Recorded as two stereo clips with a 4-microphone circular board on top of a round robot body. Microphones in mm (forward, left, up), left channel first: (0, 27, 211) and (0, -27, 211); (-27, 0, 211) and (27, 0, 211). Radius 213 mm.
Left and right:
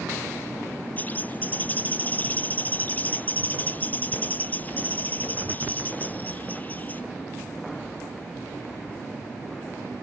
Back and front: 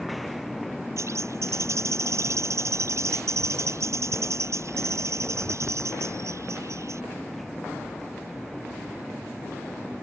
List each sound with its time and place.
1.0 s a bird: 30° left